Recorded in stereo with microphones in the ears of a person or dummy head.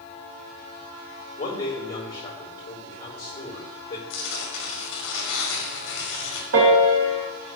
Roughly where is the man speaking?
Left.